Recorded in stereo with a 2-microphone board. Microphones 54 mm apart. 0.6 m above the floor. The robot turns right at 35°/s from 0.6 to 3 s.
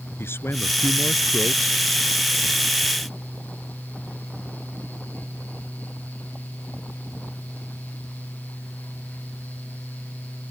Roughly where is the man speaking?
Ahead left.